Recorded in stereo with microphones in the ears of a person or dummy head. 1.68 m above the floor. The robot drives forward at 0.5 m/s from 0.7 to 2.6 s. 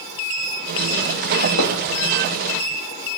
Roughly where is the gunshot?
Left.